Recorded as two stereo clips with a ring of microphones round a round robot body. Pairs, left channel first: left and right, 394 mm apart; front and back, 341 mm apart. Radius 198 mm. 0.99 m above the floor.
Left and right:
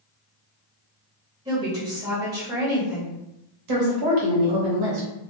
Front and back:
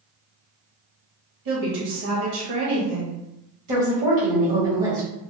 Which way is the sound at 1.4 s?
165° right.